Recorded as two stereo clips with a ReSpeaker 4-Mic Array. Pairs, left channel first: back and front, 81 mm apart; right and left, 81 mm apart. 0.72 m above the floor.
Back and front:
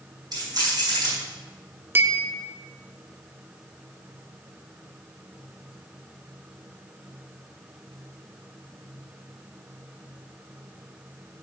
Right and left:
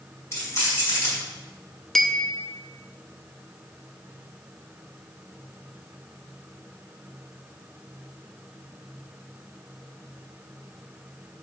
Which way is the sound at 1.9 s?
10° right.